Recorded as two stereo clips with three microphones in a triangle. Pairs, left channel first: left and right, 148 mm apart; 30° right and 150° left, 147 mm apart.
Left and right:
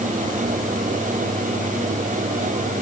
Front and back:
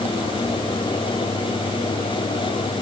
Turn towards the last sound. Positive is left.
No sound to turn to.